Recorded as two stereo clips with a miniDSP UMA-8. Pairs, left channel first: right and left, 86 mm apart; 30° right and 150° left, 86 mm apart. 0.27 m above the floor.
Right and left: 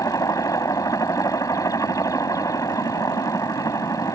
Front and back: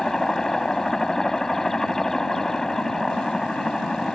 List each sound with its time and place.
0.0 s a helicopter: 115° right